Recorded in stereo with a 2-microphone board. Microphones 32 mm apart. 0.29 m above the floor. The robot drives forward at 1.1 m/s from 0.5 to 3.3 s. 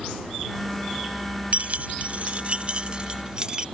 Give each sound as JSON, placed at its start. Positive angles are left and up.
{"t": 1.5, "sound": "keys jangling", "side_deg": -50}